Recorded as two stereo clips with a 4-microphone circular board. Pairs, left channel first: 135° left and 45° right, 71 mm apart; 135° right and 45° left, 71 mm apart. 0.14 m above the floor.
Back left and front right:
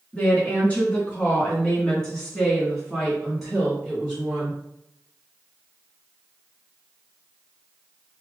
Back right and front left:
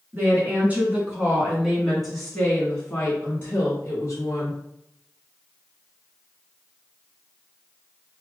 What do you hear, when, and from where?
0.1 s a woman speaking: 80° left, 1.9 m; by 4.6 s 125° right, 2 m